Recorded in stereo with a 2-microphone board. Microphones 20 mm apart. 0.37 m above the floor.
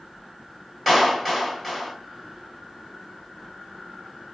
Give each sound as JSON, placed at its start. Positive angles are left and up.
{"t": 0.9, "sound": "a clap", "side_deg": -5, "distance_m": 1.8}